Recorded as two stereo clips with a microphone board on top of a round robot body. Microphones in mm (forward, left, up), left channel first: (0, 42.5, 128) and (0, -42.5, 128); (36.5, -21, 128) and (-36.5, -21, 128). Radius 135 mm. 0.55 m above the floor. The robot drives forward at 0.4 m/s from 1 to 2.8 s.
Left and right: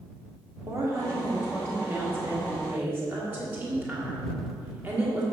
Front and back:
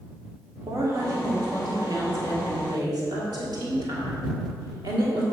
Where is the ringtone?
No ringtone in this recording.